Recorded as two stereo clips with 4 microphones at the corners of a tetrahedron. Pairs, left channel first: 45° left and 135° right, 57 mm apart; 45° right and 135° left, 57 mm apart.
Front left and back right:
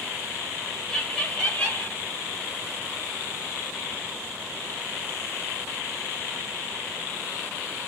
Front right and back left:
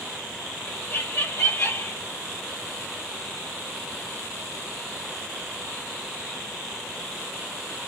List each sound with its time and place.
0.7 s laughter: 30° right, 1.3 m; by 2.0 s 10° right, 1.8 m